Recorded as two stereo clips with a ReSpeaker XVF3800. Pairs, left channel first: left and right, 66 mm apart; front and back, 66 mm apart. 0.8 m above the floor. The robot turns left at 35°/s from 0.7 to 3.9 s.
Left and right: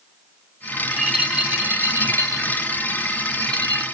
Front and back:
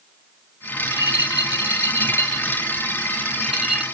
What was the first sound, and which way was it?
A rattle, 5° left.